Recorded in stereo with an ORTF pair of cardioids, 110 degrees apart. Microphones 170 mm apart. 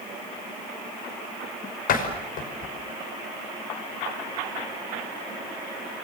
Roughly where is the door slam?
Ahead left.